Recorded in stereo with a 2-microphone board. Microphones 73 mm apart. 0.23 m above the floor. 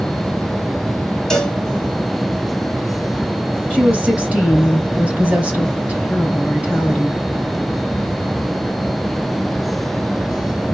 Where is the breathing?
No breathing in this recording.